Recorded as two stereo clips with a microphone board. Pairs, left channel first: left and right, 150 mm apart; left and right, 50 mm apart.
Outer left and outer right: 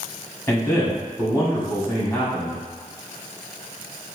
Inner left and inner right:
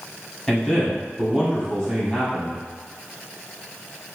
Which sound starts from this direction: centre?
A man speaking, at 0.5 s.